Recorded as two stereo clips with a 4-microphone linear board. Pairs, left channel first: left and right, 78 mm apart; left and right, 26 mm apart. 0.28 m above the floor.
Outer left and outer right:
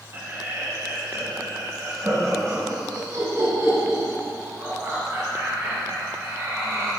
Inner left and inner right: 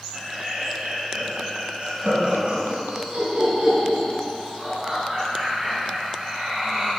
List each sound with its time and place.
0.1 s laughter: 30° right (ahead or behind), 1.5 m; by 6.9 s 45° right (ahead or behind), 4.5 m